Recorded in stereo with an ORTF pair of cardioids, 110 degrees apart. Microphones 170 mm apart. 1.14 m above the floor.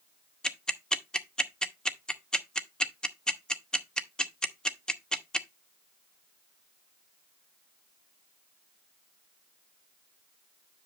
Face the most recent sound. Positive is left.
turn(degrees=5)